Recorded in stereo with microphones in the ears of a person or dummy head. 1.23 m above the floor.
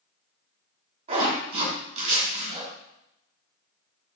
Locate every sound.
1.1 s a zipper: 45° right (ahead or behind), 3 m